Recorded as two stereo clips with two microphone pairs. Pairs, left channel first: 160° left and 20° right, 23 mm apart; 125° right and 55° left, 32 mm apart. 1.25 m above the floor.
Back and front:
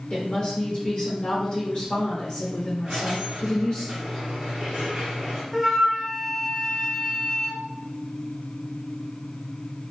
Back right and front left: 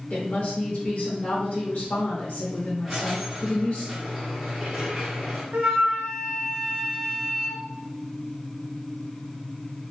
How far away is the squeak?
About 1.0 m.